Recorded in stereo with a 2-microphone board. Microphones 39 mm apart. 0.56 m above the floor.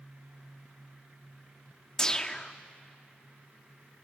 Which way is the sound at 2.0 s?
15° left (ahead or behind).